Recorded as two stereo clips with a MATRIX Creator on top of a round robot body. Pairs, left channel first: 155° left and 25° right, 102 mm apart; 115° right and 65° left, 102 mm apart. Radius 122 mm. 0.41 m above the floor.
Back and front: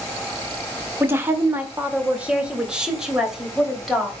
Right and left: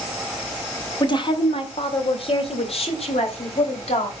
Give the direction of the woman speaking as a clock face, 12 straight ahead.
3 o'clock.